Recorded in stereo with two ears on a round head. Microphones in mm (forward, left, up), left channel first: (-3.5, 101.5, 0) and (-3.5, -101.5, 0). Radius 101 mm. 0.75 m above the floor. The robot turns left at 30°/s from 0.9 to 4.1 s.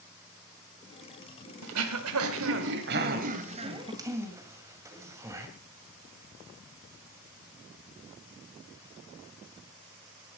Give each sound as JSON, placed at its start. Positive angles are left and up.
{"t": 1.6, "sound": "throat clearing", "side_deg": -90, "distance_m": 2.0}